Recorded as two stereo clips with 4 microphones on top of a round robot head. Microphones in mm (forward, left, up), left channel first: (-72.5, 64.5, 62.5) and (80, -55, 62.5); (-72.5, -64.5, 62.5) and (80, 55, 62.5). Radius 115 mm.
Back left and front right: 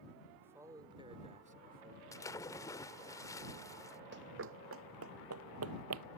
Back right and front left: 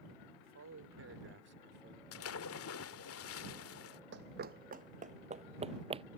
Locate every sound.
0.4 s a man speaking: 40° left; by 2.0 s 5° right
2.1 s a splash: 140° right
4.1 s running footsteps: straight ahead; by 6.0 s 25° right